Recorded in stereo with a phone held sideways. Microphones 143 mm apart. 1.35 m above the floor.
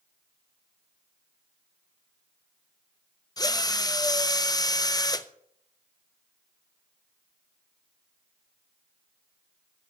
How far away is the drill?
About 0.6 m.